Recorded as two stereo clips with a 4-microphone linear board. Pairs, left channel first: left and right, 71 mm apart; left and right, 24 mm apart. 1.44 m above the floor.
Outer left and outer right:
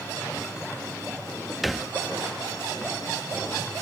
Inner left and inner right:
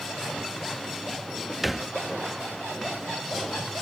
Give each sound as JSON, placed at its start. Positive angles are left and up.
{"t": 1.6, "sound": "a thud", "side_deg": 0}